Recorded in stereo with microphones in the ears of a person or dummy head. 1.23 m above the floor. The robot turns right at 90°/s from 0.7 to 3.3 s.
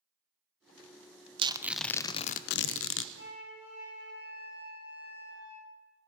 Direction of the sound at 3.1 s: 65° left (ahead or behind).